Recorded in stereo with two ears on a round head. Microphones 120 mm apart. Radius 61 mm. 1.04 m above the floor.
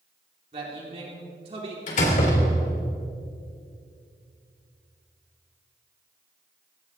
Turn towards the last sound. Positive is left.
turn(degrees=65)  # may be behind; listen again after turning